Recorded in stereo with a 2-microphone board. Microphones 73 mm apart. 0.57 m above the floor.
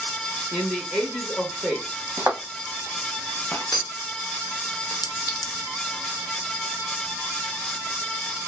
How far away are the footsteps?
About 0.9 m.